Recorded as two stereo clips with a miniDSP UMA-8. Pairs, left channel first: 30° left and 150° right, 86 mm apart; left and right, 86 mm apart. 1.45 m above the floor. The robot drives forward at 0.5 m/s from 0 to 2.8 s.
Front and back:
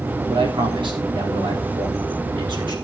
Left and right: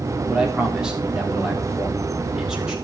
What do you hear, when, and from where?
0.3 s a man speaking: 170° right, 4 m; by 2.8 s 175° right, 5.5 m